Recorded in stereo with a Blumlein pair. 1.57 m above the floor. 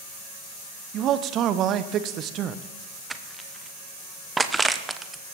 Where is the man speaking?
35° right, 0.9 m.